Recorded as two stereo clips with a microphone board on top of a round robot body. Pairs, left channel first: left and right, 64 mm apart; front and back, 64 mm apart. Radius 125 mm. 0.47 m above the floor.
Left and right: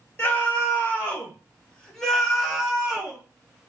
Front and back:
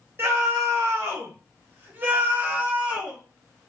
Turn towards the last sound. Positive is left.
turn(degrees=-130)